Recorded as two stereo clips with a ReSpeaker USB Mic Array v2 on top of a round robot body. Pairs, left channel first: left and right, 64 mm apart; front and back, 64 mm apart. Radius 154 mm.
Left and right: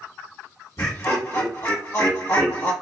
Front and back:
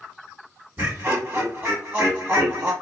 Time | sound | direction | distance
0.8 | laughter | 120° left | 1.4 m